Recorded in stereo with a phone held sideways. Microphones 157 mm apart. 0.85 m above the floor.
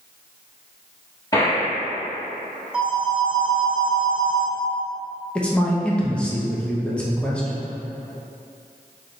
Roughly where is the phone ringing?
Centre.